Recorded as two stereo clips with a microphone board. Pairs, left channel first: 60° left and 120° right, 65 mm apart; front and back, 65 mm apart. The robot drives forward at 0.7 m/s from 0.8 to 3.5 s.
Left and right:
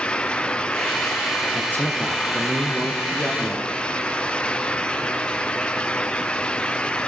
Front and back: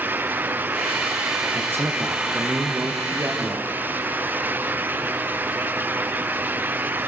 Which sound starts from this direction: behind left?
A man speaking, at 1.5 s.